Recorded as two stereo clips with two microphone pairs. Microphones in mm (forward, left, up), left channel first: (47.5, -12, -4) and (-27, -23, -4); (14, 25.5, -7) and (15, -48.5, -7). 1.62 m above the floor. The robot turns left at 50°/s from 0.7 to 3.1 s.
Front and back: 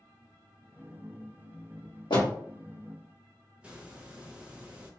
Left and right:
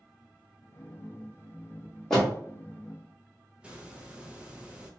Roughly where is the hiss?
Behind right.